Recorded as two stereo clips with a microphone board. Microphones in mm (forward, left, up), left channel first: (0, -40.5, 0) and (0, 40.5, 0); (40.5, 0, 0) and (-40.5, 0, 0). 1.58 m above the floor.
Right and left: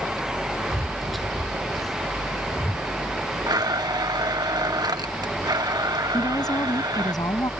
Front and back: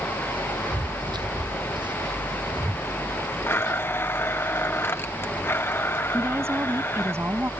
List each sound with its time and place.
0.7 s footsteps: 175° left; by 2.9 s 175° right
3.5 s a blender: 60° left
6.1 s a woman speaking: 125° right